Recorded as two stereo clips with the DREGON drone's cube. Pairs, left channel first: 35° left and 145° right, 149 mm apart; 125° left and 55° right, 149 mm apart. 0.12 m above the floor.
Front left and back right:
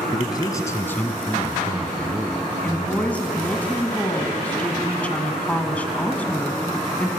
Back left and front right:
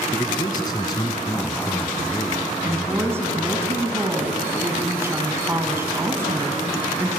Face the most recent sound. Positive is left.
turn(degrees=-25)